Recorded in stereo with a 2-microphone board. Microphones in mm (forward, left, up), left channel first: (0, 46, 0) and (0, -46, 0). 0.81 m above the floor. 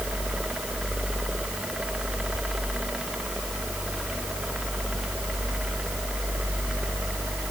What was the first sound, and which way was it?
Only background noise.